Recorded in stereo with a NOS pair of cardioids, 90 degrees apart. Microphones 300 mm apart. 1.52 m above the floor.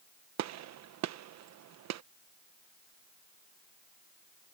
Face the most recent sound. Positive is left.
turn(degrees=-70)